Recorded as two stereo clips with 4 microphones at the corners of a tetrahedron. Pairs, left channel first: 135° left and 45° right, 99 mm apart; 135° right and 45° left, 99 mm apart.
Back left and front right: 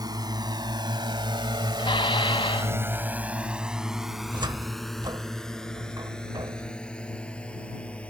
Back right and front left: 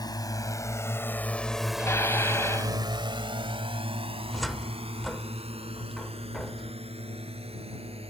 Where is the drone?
90° right; by 8.1 s 55° left.